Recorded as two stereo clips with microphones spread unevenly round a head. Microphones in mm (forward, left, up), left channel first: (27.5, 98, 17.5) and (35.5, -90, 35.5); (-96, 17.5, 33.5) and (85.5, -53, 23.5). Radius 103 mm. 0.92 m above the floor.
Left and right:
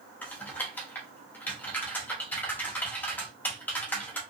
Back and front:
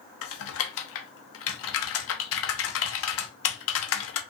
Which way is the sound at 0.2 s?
175° left.